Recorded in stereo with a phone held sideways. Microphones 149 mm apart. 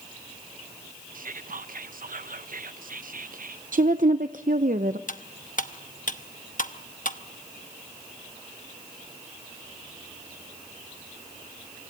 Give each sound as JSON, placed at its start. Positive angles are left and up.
{"t": 1.1, "sound": "whispering", "side_deg": -70, "distance_m": 0.9}
{"t": 3.7, "sound": "a woman speaking", "side_deg": -65, "distance_m": 0.7}
{"t": 5.1, "sound": "cutlery clinking", "side_deg": 60, "distance_m": 0.9}